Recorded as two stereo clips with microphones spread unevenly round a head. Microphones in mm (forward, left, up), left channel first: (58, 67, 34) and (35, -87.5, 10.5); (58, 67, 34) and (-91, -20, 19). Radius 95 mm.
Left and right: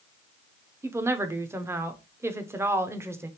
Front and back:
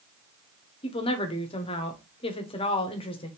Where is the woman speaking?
30° right, 0.7 m.